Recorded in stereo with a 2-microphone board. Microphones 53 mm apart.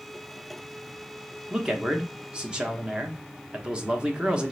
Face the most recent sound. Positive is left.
turn(degrees=-20)  # may be behind; listen again after turning